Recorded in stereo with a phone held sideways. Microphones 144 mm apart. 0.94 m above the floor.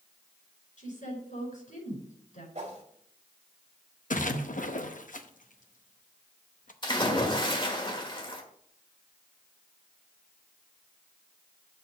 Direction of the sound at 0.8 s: 60° left (ahead or behind).